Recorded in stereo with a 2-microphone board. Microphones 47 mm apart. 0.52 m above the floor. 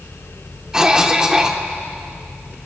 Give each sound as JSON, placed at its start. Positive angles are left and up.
{"t": 0.7, "sound": "a cough", "side_deg": -15, "distance_m": 1.4}